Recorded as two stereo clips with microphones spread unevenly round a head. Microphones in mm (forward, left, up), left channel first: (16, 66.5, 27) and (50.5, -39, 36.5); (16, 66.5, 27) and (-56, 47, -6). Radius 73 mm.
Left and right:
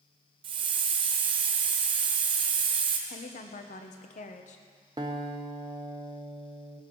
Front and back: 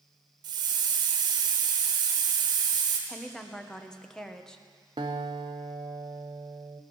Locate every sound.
0.4 s a hiss: 125° right, 1.1 m
3.1 s a woman speaking: 100° left, 1.4 m
5.0 s a guitar: 105° right, 0.7 m